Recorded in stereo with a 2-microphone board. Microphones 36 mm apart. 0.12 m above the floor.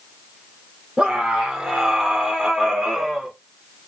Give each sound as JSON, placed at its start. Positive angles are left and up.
{"t": 1.0, "sound": "a scream", "side_deg": -20, "distance_m": 4.0}